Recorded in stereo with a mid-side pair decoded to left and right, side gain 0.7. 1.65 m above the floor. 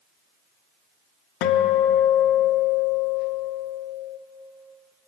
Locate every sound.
1.4 s a guitar: 70° left, 0.5 m